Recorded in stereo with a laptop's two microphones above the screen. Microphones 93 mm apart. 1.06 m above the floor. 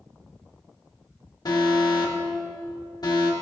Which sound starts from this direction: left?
An alarm, at 1.4 s.